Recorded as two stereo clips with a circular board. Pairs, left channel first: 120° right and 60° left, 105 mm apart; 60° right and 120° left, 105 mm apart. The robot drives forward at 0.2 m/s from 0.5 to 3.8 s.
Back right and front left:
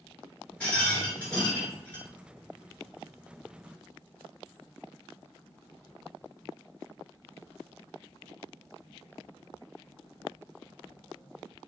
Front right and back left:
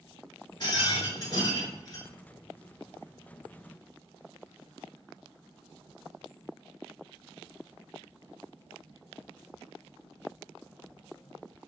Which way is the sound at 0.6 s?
50° right.